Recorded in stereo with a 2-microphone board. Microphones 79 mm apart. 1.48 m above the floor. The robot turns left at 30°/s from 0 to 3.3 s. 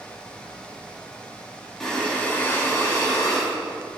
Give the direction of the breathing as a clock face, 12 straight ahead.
6 o'clock.